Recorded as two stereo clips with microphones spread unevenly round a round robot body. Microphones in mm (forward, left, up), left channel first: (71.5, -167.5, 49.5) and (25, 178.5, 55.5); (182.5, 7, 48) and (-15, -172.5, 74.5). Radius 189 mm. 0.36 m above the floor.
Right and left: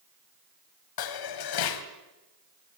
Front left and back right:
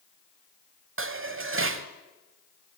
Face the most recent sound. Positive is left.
turn(degrees=-95)